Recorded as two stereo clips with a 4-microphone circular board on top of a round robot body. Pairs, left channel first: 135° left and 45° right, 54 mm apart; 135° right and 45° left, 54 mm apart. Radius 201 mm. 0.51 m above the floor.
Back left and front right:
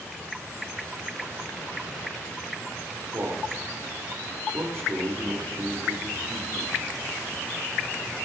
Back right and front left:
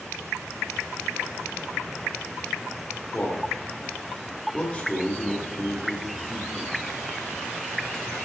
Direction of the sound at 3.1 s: 70° right.